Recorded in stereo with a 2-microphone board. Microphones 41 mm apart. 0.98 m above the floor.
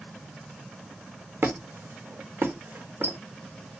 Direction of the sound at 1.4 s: 55° right (ahead or behind).